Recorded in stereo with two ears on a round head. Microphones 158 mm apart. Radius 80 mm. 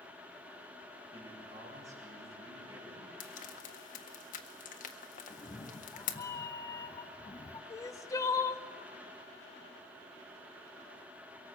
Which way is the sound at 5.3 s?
20° left (ahead or behind).